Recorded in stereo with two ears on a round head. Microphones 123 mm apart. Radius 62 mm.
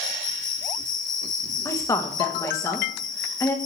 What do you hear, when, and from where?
0.0 s an insect: 60° left (ahead or behind), 1.3 m
1.6 s a woman speaking: 20° left (ahead or behind), 1.0 m